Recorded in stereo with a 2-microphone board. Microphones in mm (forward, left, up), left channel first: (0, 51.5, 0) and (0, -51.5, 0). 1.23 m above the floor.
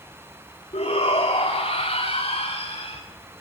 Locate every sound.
0.7 s a shout: 80° left, 3.5 m